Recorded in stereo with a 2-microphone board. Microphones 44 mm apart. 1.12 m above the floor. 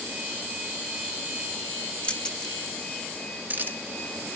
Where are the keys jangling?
25° left (ahead or behind), 1.4 m; by 3.8 s 50° right (ahead or behind), 1.4 m.